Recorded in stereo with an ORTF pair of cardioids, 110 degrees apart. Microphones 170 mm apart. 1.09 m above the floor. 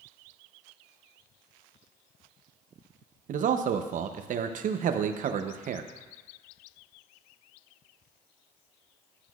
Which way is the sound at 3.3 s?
50° right.